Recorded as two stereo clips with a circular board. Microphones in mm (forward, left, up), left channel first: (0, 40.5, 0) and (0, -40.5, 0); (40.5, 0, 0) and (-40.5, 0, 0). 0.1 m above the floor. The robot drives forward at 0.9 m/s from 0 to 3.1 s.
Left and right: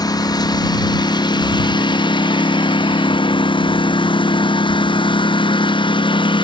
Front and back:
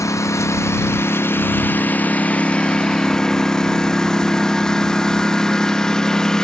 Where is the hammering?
I don't hear hammering.